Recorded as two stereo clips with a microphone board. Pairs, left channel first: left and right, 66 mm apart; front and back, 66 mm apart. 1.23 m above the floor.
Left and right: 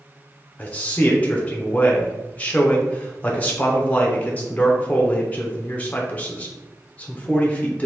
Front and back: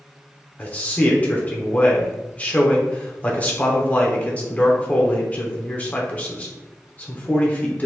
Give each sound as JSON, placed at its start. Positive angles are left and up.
{"t": 0.6, "sound": "a man speaking", "azimuth_deg": 45, "distance_m": 0.7}